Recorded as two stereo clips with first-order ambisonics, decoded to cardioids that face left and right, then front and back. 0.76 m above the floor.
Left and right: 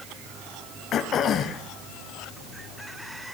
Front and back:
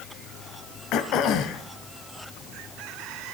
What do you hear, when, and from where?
0.9 s throat clearing: 40° left, 1.0 m